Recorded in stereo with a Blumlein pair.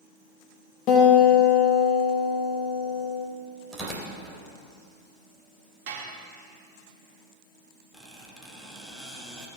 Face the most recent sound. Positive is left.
turn(degrees=0)